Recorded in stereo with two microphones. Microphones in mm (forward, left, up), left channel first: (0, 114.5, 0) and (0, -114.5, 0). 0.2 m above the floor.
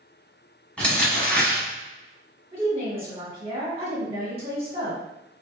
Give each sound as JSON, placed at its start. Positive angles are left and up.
{"t": 0.8, "sound": "crumpling", "side_deg": 5, "distance_m": 1.2}
{"t": 2.5, "sound": "a woman speaking", "side_deg": -25, "distance_m": 1.8}